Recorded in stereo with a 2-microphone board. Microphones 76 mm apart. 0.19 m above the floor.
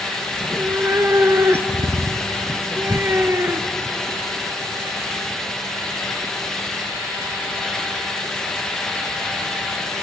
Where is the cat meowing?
35° right (ahead or behind), 1.3 m.